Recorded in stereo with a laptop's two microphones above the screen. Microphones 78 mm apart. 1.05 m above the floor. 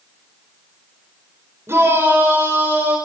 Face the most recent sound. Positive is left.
turn(degrees=-25)  # may be behind; listen again after turning